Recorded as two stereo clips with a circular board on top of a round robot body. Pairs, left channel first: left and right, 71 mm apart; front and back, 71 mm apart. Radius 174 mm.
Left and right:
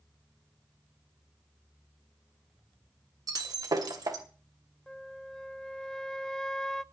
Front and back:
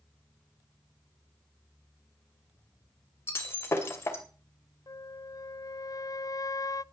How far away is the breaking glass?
About 2.5 m.